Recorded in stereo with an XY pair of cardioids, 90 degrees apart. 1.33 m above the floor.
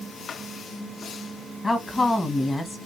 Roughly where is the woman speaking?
Ahead left.